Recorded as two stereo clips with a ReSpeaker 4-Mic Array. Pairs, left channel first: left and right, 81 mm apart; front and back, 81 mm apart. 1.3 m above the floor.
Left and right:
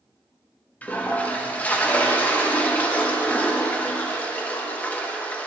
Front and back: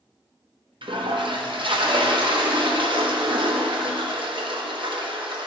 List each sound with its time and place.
0.8 s a toilet flushing: 160° left, 1.1 m